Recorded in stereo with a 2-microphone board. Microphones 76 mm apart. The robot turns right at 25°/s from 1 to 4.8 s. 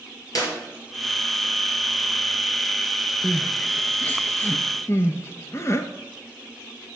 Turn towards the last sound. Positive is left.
turn(degrees=40)  # may be behind; listen again after turning